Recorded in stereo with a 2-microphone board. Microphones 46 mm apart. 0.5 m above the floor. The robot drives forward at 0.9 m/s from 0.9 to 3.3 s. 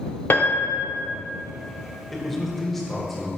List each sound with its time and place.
0.3 s a piano: 45° left (ahead or behind), 0.7 m
2.1 s a man speaking: 5° left (ahead or behind), 1.4 m